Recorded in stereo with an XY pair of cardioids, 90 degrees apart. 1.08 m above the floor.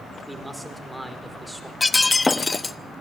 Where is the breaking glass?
25° left, 0.8 m.